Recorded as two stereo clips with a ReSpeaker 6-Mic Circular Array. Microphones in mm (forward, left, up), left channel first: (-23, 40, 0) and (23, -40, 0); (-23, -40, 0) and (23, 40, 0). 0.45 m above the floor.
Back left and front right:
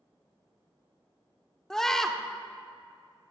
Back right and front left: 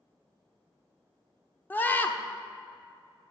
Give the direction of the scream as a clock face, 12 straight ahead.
5 o'clock.